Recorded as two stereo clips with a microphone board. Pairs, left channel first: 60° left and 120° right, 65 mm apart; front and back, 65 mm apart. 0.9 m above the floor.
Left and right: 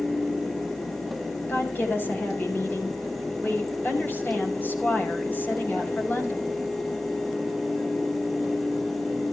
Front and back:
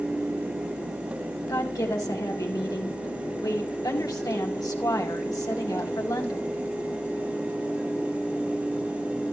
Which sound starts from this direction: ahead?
A woman speaking, at 1.5 s.